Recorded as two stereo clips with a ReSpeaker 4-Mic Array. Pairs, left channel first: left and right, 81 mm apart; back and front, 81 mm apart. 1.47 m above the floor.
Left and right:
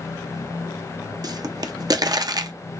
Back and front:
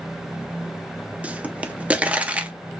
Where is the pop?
70° right, 0.6 m.